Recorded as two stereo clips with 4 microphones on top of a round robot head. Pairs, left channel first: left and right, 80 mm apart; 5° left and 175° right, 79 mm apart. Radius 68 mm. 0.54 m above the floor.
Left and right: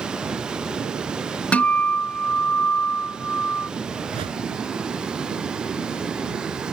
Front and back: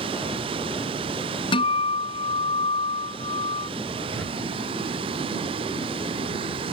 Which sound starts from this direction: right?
A whoosh, at 4.1 s.